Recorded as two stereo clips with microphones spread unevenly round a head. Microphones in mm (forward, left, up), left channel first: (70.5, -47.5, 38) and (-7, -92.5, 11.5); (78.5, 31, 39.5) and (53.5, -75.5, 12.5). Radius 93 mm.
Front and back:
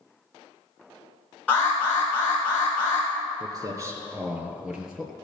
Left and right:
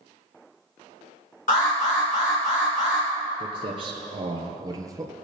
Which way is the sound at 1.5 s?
115° left.